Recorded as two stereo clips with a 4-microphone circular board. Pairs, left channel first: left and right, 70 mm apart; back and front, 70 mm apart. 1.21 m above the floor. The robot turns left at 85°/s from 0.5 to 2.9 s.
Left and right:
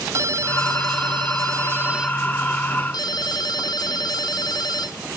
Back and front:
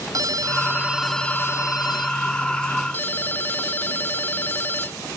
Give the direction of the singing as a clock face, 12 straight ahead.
No singing in this recording.